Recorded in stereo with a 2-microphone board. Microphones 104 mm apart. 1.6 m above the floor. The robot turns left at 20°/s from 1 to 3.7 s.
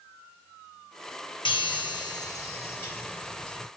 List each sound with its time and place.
1.4 s a chime: 50° left, 1.4 m; by 3.7 s 5° left, 1.4 m